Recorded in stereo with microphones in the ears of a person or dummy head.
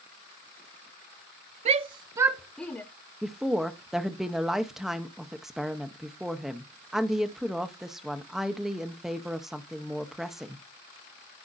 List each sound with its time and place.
1.6 s a shout: 35° right (ahead or behind), 0.6 m; by 2.8 s 10° left (ahead or behind), 0.6 m
3.2 s a woman speaking: 5° right (ahead or behind), 0.7 m